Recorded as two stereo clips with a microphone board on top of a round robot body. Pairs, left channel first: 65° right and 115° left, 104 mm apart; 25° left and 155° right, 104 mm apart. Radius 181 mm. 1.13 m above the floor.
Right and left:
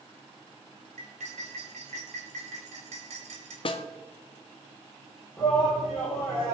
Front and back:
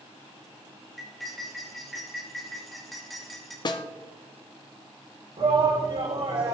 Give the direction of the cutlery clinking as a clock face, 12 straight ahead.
8 o'clock.